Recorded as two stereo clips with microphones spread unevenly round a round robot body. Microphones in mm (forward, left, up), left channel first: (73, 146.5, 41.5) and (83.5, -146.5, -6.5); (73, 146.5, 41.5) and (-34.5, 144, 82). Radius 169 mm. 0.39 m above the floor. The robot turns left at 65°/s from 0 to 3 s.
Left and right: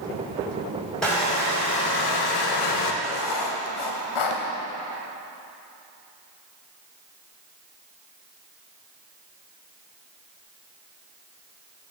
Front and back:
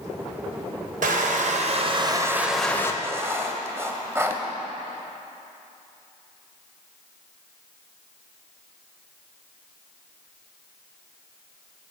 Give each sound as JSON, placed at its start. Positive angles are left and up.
{"t": 1.0, "sound": "crushing", "azimuth_deg": -175, "distance_m": 1.0}
{"t": 3.0, "sound": "writing", "azimuth_deg": 105, "distance_m": 1.1}